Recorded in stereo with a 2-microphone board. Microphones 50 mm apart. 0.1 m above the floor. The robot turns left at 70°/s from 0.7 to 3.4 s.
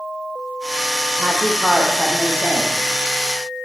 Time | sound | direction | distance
1.2 | a woman speaking | 140° right | 4 m